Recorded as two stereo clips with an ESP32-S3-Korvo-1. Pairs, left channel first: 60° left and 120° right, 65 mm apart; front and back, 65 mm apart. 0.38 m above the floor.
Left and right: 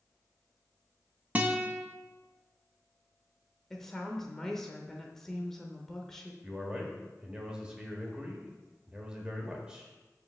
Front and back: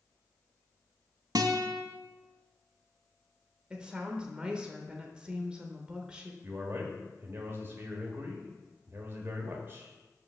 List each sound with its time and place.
1.4 s a guitar: 175° left, 0.7 m
3.7 s a woman speaking: 135° left, 0.8 m
6.4 s a man speaking: 175° left, 1.1 m